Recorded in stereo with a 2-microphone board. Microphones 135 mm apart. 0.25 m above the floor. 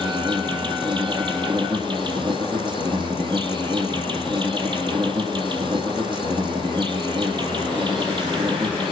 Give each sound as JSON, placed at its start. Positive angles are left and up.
{"t": 0.0, "sound": "an insect", "side_deg": -35, "distance_m": 1.7}